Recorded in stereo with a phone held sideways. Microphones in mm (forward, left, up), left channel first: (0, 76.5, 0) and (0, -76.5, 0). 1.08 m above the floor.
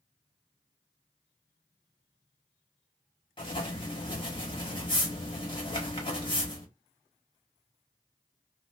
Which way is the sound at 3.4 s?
35° left (ahead or behind).